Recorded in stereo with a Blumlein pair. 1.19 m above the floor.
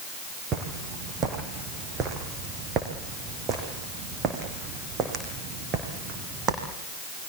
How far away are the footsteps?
About 4 m.